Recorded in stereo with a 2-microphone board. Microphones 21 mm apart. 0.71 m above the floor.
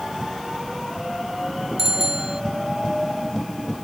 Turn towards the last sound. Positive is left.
turn(degrees=-20)  # may be behind; listen again after turning